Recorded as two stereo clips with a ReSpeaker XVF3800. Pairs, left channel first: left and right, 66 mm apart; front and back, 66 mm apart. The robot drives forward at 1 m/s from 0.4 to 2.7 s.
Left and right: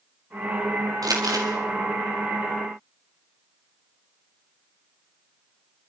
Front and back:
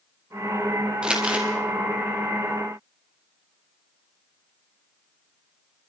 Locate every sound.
1.0 s crumpling: 105° right, 4 m; by 1.5 s 110° right, 4 m